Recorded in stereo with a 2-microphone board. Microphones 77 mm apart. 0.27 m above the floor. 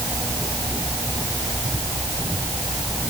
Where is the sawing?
No sawing in this recording.